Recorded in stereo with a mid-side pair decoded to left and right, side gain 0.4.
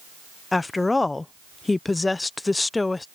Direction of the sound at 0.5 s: 25° left.